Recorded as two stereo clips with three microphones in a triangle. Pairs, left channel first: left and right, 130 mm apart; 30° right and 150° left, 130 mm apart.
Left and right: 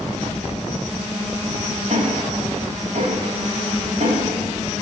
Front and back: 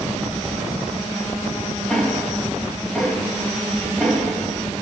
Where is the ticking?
110° right, 9.5 m.